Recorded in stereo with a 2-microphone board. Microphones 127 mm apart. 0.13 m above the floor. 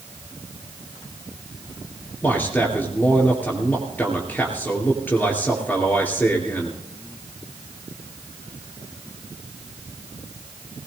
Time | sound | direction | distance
2.2 | a man speaking | 15° left (ahead or behind) | 2.5 m